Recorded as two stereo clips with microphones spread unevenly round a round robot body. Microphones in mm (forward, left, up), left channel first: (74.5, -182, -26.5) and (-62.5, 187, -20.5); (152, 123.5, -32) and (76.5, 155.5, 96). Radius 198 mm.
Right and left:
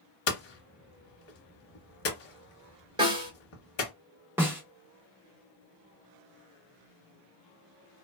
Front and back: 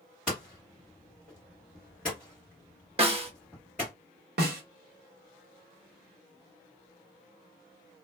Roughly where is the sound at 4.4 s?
Behind.